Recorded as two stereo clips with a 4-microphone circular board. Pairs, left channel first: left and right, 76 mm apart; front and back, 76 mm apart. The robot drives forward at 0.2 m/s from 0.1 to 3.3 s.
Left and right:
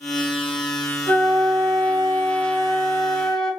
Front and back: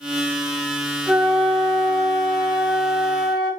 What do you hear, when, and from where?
1.1 s a flute: 75° right, 1.3 m; by 3.5 s 95° right, 1.3 m